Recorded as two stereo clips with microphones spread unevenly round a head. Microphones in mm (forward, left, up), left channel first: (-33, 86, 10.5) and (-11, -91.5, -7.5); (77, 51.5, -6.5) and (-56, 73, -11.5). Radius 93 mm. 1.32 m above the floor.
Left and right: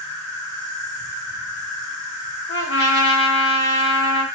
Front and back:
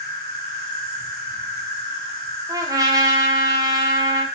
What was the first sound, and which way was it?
An insect, 55° left.